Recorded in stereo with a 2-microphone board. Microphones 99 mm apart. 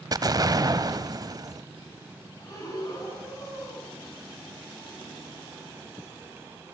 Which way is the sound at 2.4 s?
35° left (ahead or behind).